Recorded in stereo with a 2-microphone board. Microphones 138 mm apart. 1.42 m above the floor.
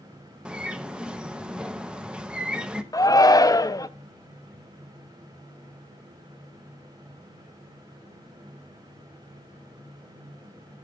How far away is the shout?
About 0.7 m.